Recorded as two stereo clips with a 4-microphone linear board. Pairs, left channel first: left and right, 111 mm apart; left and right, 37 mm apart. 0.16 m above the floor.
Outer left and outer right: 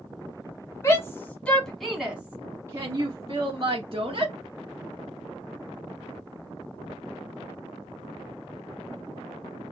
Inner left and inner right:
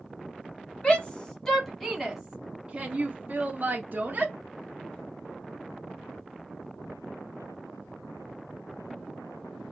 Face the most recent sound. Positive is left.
turn(degrees=-50)  # may be behind; listen again after turning